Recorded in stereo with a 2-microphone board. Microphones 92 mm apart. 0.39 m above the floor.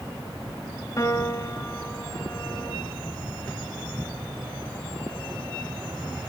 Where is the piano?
35° left (ahead or behind), 2 m.